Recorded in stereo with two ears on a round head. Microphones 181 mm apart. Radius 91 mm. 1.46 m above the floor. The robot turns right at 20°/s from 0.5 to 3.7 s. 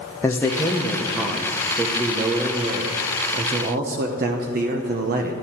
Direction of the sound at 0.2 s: 170° left.